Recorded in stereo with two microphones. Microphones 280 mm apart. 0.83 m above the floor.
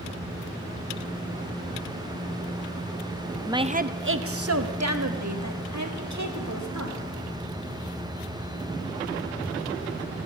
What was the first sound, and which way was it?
A woman speaking, 10° right (ahead or behind).